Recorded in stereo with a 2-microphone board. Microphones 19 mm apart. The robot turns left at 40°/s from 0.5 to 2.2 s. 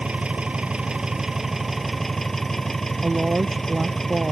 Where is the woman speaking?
70° right (ahead or behind).